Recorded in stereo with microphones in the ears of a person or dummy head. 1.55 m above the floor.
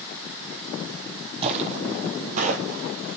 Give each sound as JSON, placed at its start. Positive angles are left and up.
{"t": 1.4, "sound": "footsteps", "side_deg": -30, "distance_m": 3.0}